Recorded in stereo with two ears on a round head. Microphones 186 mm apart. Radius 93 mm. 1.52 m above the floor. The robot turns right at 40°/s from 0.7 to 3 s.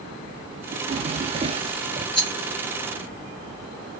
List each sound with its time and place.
0.7 s a drawer: 95° right, 0.6 m; by 2.0 s 40° right, 0.6 m
2.1 s a rattle: centre (ahead or behind), 2 m; by 2.3 s 10° left (ahead or behind), 2 m